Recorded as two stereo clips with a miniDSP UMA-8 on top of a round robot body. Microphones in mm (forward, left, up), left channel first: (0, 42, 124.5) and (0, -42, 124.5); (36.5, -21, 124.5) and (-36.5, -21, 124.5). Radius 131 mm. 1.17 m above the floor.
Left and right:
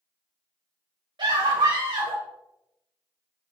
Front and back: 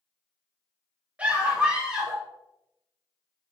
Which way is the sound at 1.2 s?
110° right.